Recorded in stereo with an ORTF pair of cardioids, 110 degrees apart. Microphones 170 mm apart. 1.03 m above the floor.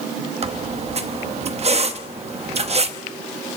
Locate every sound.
0.4 s a squeak: 40° right, 1.0 m